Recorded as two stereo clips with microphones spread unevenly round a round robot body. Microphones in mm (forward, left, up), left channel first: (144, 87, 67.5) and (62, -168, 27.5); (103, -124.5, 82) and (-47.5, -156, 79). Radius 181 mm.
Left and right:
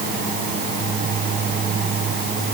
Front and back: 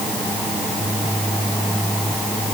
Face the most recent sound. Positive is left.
No sound to turn to.